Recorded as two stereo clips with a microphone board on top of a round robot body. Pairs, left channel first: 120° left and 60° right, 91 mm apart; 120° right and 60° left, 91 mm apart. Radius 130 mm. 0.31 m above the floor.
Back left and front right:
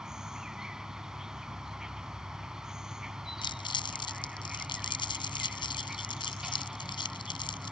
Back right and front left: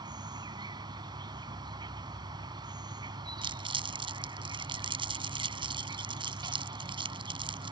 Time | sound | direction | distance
0.0 | an insect | 25° left | ?
3.4 | crumpling | 85° left | ?